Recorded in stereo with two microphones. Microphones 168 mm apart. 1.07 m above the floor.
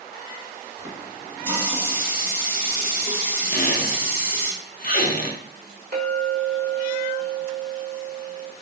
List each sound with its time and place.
0.8 s a running tap: 10° right (ahead or behind), 0.8 m
3.5 s a squeak: 60° left (ahead or behind), 0.5 m
5.9 s a clink: 70° right (ahead or behind), 1.1 m